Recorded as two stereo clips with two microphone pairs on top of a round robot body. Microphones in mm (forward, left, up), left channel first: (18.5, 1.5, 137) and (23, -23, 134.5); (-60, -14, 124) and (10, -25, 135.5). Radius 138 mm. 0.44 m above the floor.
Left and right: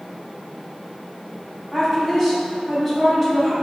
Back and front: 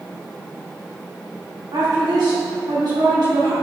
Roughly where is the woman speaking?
Ahead left.